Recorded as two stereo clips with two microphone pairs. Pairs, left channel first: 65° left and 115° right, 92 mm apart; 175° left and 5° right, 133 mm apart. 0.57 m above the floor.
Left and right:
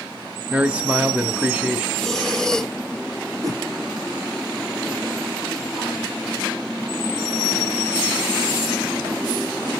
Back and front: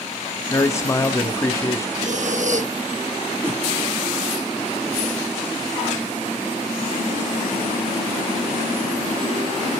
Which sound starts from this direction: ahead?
Breathing, at 2.0 s.